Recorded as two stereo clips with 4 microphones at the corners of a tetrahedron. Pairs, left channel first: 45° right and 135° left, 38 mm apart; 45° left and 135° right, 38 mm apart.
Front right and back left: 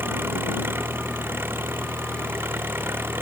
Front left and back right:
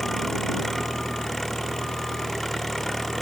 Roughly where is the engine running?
Behind left.